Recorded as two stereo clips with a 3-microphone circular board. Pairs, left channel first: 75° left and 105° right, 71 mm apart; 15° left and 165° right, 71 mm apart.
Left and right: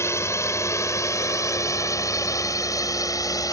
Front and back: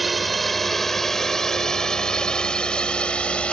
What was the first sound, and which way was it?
A drone, 105° left.